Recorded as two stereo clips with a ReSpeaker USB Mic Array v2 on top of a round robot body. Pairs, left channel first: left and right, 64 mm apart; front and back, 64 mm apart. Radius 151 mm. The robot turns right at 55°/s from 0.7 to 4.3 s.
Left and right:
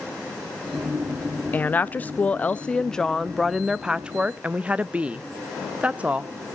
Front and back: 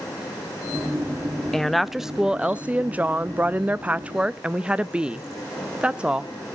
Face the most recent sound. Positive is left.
turn(degrees=-130)